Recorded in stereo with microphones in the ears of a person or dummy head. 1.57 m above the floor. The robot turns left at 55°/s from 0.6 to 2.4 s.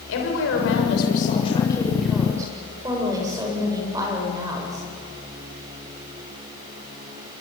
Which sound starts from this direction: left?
A woman speaking, at 0.1 s.